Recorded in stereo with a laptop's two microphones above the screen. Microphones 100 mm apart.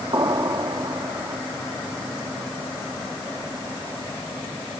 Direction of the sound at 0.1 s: 45° right (ahead or behind).